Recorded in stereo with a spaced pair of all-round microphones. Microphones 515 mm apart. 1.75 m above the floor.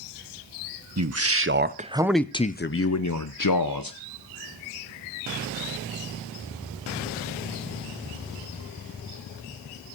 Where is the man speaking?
30° right (ahead or behind), 1.0 m; by 4.0 s 40° left (ahead or behind), 1.2 m.